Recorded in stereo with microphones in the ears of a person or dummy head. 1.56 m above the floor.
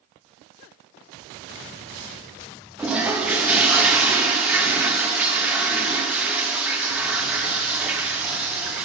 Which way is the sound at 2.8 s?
5° right (ahead or behind).